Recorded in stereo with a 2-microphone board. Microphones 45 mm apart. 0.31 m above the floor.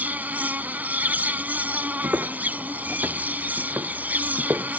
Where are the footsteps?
70° right (ahead or behind); by 4.8 s 65° right (ahead or behind).